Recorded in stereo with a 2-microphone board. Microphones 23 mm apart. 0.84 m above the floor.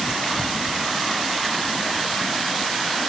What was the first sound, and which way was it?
Only background noise.